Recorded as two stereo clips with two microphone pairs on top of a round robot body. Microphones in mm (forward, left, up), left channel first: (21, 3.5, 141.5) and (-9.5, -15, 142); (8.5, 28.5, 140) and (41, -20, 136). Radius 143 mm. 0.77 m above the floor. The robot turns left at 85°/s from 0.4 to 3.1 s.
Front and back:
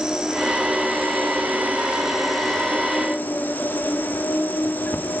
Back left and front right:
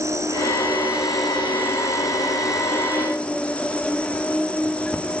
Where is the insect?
75° right, 3.5 m; by 5.2 s 55° left, 3.5 m.